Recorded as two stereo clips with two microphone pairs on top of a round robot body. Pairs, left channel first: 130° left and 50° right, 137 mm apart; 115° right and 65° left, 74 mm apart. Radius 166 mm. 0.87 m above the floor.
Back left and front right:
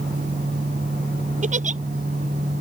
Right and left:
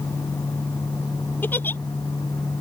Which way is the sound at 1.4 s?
65° right.